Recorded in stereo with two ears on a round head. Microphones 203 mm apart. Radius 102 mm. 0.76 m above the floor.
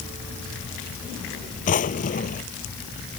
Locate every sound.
1.7 s a drawer: 35° left (ahead or behind)